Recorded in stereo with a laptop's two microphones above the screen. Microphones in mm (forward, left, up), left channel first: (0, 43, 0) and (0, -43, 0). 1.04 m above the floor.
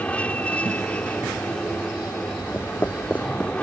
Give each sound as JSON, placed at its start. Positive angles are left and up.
{"t": 0.0, "sound": "an aircraft", "side_deg": 15}
{"t": 2.5, "sound": "footsteps", "side_deg": 25}